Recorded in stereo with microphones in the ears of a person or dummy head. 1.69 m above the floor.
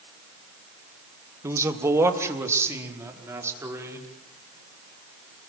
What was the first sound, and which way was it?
A man speaking, 20° right (ahead or behind).